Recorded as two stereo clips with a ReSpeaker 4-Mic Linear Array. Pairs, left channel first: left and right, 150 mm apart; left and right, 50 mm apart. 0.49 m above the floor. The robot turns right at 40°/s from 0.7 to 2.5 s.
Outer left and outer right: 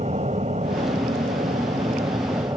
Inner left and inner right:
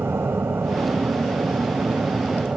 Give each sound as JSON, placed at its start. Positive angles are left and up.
{"t": 0.0, "sound": "an aircraft", "azimuth_deg": -105}